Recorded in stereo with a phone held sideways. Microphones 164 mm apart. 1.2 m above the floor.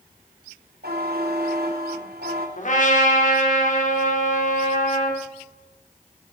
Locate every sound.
0.8 s a buzzer: 70° right (ahead or behind), 3 m
2.6 s a trumpet: 50° left (ahead or behind), 3 m